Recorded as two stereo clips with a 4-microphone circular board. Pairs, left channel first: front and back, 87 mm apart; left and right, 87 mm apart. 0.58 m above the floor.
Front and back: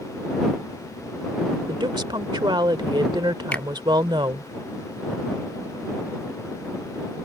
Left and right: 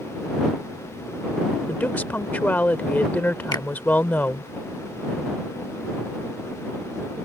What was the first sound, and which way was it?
A woman speaking, 160° left.